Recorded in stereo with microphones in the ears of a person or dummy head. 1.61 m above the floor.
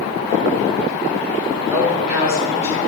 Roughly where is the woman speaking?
Centre.